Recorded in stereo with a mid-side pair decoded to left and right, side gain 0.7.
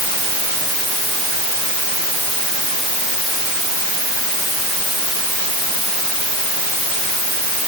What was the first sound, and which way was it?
Only background noise.